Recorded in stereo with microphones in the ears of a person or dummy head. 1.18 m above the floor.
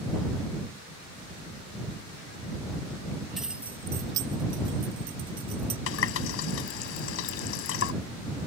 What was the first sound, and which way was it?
Keys jangling, 5° left (ahead or behind).